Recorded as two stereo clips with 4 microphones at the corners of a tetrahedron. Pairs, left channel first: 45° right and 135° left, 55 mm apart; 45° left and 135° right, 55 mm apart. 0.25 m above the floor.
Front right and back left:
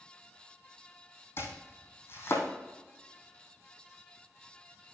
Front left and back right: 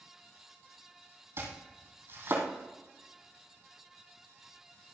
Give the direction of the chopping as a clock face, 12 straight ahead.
3 o'clock.